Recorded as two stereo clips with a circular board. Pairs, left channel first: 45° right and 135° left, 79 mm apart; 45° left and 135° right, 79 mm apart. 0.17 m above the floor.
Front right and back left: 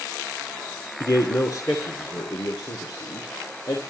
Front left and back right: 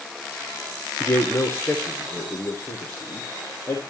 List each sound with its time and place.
1.0 s a man speaking: 15° right, 2.0 m